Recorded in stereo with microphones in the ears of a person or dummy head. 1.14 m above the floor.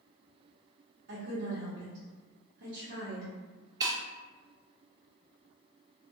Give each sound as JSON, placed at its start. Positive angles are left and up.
{"t": 1.1, "sound": "a woman speaking", "side_deg": -70, "distance_m": 1.1}
{"t": 3.8, "sound": "breaking glass", "side_deg": -30, "distance_m": 0.5}